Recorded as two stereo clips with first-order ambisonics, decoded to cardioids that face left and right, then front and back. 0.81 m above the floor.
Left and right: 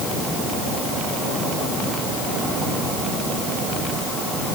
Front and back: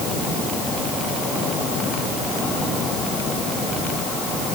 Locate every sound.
Only background noise.